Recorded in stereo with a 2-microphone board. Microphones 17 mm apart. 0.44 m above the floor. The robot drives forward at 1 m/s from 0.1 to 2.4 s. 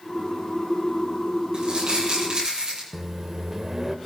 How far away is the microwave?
About 0.9 m.